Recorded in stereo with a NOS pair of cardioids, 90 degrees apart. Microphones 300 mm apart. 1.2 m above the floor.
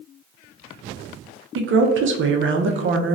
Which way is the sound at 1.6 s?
40° right.